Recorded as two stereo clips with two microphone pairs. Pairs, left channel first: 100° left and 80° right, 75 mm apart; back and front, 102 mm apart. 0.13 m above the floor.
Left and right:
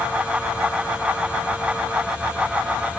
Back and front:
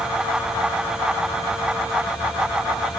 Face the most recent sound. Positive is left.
No sound to turn to.